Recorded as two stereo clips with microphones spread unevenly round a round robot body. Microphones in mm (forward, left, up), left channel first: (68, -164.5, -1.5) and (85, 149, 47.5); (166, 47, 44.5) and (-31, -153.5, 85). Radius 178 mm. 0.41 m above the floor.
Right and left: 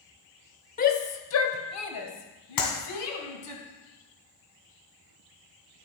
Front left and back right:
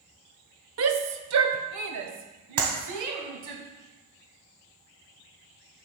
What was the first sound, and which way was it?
A shout, 130° right.